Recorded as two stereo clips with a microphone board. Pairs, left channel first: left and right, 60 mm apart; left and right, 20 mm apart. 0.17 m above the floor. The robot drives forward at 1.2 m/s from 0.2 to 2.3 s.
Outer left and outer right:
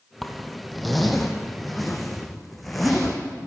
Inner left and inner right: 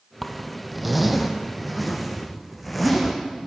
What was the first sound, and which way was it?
A zipper, centre (ahead or behind).